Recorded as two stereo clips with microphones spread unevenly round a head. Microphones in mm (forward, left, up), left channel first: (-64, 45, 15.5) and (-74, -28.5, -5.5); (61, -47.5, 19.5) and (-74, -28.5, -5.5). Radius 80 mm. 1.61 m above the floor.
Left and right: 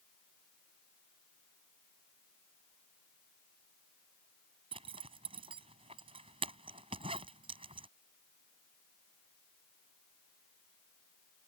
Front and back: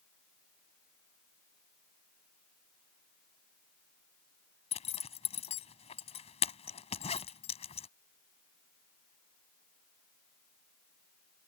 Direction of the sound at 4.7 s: 50° right.